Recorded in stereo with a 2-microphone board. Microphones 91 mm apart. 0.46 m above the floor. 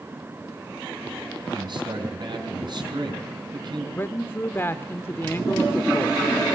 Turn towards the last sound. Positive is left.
turn(degrees=25)  # may be behind; listen again after turning